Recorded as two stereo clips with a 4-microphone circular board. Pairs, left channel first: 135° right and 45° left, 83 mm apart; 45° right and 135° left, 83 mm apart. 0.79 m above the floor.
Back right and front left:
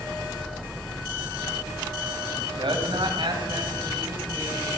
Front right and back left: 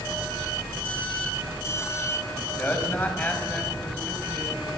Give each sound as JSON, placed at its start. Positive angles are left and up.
{"t": 2.3, "sound": "a man speaking", "azimuth_deg": 25, "distance_m": 5.5}